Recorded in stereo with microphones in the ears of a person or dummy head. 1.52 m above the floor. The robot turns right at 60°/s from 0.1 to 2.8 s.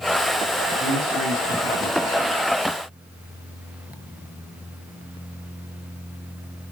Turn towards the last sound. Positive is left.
turn(degrees=-55)